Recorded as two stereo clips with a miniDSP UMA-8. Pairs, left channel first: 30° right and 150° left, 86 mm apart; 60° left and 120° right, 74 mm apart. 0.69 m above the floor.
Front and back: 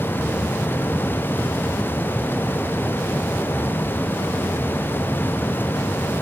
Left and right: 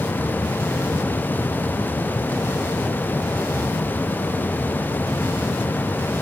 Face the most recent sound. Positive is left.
No sound to turn to.